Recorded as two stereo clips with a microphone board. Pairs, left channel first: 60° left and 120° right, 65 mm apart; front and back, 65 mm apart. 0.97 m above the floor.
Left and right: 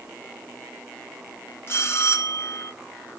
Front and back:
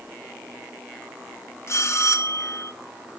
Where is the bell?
25° left, 1.0 m.